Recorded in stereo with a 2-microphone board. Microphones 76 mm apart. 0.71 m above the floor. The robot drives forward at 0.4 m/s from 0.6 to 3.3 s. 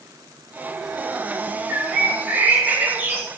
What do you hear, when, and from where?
1.7 s a bird: 20° right (ahead or behind), 2 m; by 3.3 s 30° right (ahead or behind), 1.6 m